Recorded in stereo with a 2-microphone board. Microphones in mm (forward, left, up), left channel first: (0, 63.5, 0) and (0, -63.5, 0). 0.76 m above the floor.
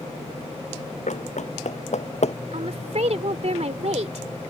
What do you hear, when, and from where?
1.1 s running footsteps: 75° left (ahead or behind); by 2.4 s 60° left (ahead or behind)
2.5 s a woman speaking: 65° right (ahead or behind)